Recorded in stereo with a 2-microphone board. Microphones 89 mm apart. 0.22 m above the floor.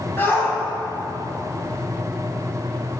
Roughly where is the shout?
Left.